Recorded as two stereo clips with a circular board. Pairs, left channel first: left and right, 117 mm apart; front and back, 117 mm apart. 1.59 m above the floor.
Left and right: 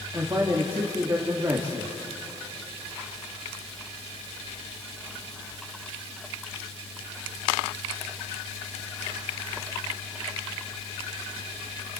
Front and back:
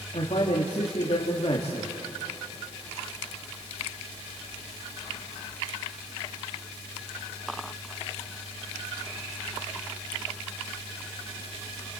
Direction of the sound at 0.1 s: 35° right.